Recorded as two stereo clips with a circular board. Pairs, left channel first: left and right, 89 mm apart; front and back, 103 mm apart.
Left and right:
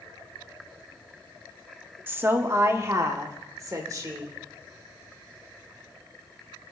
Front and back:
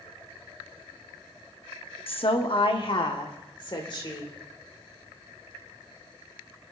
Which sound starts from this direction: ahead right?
A woman speaking, at 2.1 s.